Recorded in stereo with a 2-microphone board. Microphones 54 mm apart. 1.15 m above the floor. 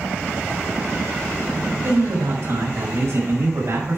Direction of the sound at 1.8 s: 60° right (ahead or behind).